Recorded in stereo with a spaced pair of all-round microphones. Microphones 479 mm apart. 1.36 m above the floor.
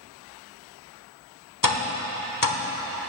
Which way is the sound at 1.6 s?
40° left (ahead or behind).